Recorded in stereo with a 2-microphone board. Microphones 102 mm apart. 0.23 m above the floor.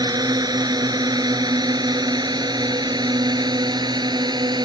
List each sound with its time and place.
0.0 s a drone: 40° right (ahead or behind); by 4.6 s 45° right (ahead or behind)